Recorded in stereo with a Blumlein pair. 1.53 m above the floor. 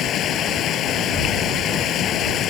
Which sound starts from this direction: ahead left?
Running water, at 0.0 s.